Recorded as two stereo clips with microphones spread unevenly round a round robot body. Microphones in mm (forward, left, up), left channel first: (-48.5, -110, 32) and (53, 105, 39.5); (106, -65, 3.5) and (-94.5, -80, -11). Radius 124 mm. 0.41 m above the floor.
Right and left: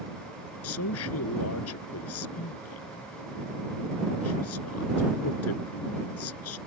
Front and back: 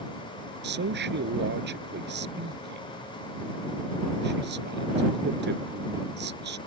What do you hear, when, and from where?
0.6 s a man speaking: 145° right